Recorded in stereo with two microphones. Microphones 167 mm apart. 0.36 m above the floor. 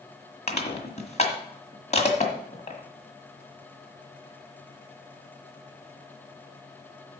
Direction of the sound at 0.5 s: 40° left (ahead or behind).